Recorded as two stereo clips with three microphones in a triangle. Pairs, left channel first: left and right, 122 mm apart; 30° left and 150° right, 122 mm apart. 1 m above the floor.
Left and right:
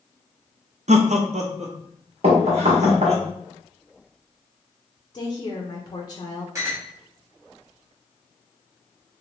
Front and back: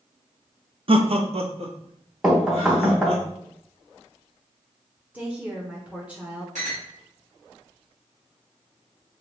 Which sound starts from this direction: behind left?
A woman speaking, at 5.1 s.